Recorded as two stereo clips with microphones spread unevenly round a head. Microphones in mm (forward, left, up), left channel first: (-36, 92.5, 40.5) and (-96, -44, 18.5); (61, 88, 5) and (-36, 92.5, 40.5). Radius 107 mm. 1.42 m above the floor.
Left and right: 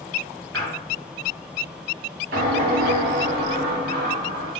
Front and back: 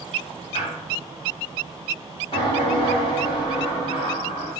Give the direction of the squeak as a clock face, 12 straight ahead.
3 o'clock.